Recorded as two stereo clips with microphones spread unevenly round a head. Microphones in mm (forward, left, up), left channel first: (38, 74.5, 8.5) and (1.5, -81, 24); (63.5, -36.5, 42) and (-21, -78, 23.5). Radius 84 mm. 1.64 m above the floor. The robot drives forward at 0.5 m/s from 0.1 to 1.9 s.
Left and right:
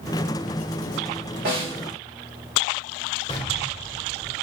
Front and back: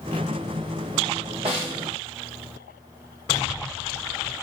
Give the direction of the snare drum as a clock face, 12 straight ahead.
4 o'clock.